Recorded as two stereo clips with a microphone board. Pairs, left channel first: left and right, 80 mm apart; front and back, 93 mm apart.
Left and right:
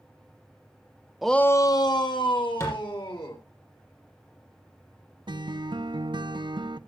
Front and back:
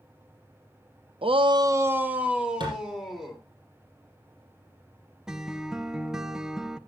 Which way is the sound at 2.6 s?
145° left.